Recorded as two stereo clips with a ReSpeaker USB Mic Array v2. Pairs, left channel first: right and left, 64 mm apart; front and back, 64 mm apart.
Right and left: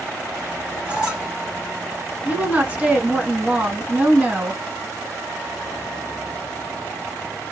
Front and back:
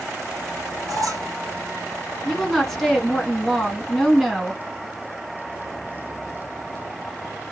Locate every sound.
0.9 s a squeak: 160° left, 1.7 m
2.2 s a woman speaking: 75° left, 1.2 m